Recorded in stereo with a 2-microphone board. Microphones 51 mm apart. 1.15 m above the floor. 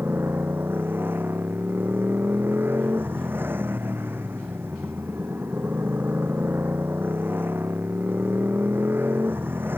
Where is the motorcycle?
45° right (ahead or behind).